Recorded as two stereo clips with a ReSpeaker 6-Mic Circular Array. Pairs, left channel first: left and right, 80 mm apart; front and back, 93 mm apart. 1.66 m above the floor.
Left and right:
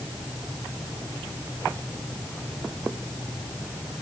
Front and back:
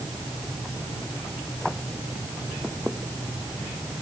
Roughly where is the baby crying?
No baby crying in this recording.